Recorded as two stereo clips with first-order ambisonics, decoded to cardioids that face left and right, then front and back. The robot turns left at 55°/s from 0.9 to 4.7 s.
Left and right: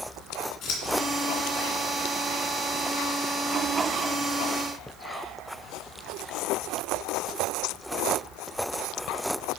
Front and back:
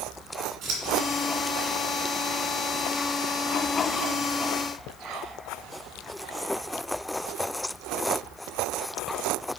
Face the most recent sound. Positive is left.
turn(degrees=-75)